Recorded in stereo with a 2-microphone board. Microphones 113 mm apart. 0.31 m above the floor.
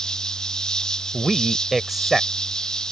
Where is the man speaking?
Centre (ahead or behind).